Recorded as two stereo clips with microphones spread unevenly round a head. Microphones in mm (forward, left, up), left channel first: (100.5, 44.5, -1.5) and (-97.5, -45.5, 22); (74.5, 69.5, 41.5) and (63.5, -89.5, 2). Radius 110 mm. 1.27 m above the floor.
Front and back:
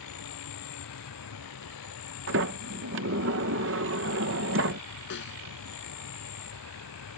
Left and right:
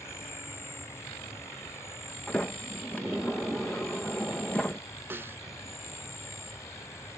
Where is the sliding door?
170° left.